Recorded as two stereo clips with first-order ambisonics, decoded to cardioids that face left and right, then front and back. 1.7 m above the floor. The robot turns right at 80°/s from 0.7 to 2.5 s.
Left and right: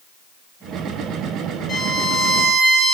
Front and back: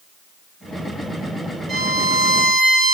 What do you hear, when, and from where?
1.7 s a violin: 140° left, 1.7 m; by 2.9 s 155° right, 1.7 m